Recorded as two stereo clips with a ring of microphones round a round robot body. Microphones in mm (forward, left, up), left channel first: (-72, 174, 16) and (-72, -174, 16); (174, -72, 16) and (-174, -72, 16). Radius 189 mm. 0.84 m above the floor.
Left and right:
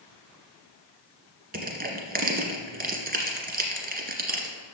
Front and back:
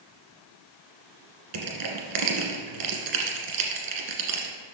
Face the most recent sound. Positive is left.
turn(degrees=-155)